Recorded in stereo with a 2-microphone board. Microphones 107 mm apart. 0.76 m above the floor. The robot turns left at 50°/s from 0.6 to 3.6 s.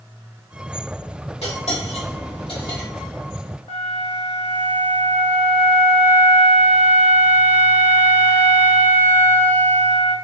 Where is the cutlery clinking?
70° left (ahead or behind), 1.7 m; by 2.9 s 35° left (ahead or behind), 1.7 m.